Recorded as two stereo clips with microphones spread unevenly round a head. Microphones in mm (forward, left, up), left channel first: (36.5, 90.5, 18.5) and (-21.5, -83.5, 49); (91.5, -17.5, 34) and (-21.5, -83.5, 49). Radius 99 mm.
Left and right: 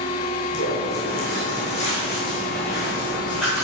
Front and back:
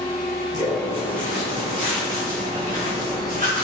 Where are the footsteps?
105° left, 2 m; by 3.6 s 165° left, 2.5 m.